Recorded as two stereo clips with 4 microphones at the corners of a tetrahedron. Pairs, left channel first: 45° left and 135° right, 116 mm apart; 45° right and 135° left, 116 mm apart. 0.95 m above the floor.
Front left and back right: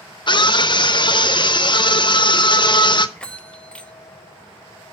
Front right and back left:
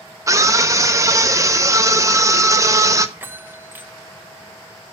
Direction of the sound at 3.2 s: 110° left.